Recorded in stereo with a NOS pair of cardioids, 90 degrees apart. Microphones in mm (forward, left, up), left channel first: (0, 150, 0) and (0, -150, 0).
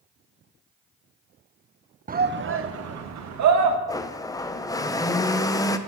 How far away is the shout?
About 1.0 m.